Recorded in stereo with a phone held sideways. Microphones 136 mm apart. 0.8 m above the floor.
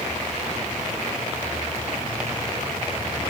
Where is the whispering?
No whispering in this recording.